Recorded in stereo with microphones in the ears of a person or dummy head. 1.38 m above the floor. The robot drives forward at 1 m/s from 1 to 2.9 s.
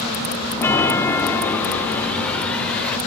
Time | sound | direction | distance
0.6 | a chime | 15° left (ahead or behind) | 2.5 m